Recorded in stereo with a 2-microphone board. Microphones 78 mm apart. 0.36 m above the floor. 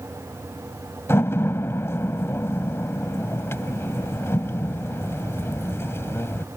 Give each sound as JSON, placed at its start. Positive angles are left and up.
{"t": 1.1, "sound": "a door slam", "side_deg": 35}